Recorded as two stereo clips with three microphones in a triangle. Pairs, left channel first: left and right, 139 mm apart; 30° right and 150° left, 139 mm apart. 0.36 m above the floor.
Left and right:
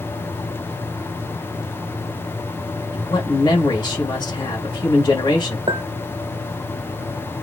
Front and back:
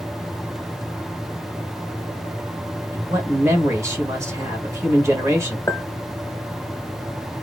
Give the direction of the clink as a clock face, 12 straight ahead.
3 o'clock.